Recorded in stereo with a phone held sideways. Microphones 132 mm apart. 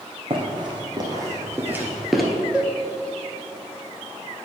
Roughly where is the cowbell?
Centre.